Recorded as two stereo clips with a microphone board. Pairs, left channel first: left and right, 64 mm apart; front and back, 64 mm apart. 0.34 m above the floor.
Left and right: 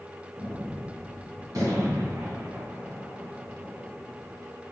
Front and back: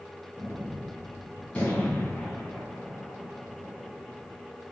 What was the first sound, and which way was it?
A gunshot, 70° right.